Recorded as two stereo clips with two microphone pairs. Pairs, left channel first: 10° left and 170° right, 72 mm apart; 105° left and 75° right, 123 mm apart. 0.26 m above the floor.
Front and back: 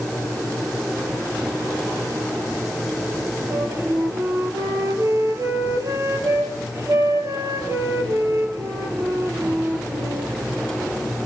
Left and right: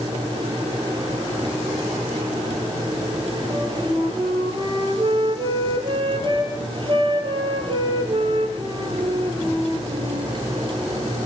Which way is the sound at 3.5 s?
120° right.